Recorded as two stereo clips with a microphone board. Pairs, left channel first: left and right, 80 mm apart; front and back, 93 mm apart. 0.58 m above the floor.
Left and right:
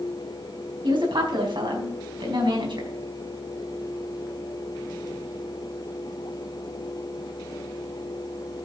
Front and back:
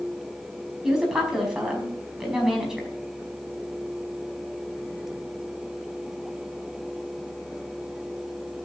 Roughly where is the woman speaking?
Right.